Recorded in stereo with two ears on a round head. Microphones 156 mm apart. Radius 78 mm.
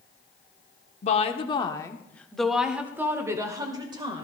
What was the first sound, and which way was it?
A woman speaking, 40° left (ahead or behind).